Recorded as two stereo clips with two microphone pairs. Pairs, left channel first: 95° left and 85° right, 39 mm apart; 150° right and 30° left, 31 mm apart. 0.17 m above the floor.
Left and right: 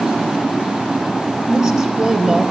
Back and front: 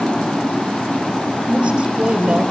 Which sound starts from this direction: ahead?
A woman speaking, at 1.5 s.